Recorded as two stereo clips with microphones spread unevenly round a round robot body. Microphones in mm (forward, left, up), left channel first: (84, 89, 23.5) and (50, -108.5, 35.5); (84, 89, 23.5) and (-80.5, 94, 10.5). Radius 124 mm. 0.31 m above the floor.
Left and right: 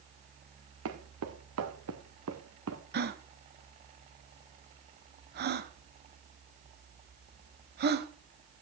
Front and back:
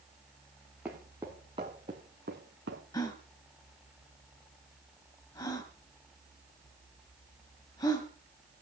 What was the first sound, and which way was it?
Footsteps, 95° right.